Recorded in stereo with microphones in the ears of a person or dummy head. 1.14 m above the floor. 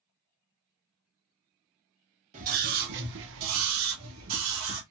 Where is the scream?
40° right (ahead or behind), 0.9 m; by 4.8 s 70° right (ahead or behind), 1.3 m.